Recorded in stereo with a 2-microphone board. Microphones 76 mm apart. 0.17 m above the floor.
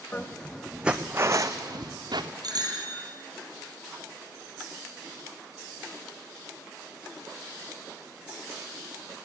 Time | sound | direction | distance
0.1 | footsteps | 25° left (ahead or behind) | 0.8 m
2.4 | a bicycle bell | 60° right (ahead or behind) | 3 m